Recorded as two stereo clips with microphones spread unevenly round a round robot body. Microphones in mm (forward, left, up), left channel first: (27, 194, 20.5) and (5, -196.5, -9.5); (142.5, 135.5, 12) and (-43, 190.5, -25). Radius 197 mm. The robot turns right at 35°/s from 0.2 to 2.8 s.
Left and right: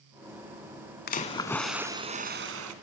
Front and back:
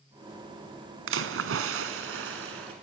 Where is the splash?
155° left, 1.2 m; by 2.7 s 145° right, 1.2 m.